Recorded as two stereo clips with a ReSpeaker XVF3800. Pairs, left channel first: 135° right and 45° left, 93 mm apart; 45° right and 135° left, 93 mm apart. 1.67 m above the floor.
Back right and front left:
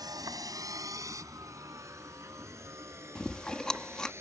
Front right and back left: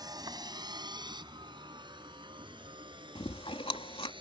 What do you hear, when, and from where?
0.0 s a vehicle: 90° left; by 4.2 s 105° left
3.1 s chewing: 55° right